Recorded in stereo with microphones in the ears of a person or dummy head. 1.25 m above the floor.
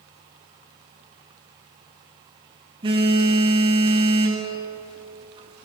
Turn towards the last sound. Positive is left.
turn(degrees=-25)  # may be behind; listen again after turning